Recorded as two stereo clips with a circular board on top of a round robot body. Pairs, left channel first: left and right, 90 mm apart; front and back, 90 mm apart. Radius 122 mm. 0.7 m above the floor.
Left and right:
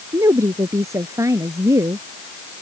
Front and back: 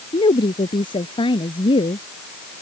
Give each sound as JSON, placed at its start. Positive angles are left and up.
{"t": 0.1, "sound": "a woman speaking", "azimuth_deg": -30}